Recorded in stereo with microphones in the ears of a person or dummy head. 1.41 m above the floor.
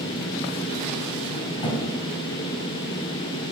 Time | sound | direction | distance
1.6 | a thud | 30° left (ahead or behind) | 2.5 m